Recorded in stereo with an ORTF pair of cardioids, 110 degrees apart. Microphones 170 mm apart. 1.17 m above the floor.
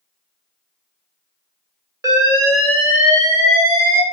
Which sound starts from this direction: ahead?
An alarm, at 2.0 s.